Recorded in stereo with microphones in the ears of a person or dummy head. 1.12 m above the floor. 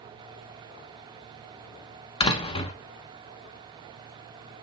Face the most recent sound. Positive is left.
turn(degrees=30)  # may be behind; listen again after turning